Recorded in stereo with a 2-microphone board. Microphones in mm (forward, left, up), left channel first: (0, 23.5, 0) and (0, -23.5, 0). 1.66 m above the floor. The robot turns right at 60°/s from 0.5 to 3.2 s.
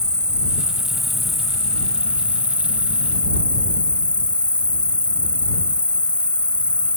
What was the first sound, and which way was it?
An insect, 20° right (ahead or behind).